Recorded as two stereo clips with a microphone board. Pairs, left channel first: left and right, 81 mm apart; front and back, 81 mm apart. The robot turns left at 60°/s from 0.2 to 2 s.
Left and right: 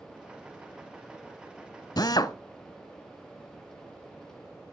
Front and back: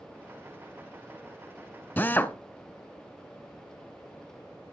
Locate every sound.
2.0 s a drill: 65° left, 0.9 m